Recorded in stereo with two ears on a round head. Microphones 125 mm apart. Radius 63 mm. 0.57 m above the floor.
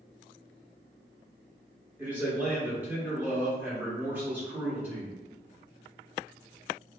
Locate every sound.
2.0 s a man speaking: 15° right (ahead or behind), 0.9 m